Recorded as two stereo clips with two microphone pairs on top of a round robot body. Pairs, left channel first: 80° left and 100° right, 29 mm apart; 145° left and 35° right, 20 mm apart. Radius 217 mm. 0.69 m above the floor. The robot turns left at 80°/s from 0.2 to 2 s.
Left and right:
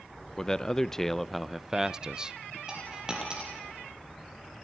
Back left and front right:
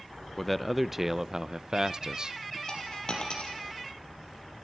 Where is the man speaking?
90° left, 0.8 m; by 2.6 s 40° right, 0.8 m.